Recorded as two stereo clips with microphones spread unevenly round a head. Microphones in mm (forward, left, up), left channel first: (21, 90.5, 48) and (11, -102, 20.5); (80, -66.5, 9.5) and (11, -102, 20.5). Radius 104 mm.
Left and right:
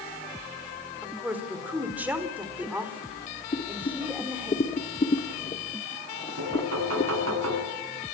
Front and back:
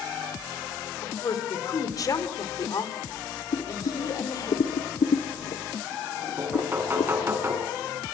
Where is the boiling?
20° left, 1.5 m.